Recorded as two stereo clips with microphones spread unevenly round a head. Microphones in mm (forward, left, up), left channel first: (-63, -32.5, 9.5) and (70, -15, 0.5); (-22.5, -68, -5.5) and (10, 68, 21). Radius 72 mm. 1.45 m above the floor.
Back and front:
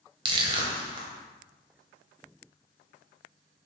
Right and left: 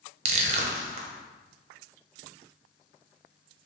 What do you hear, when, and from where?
0.2 s crushing: 65° left, 0.6 m